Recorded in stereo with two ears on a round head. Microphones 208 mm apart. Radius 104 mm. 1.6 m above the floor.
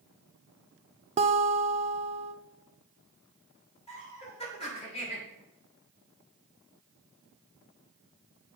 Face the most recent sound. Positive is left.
turn(degrees=25)  # may be behind; listen again after turning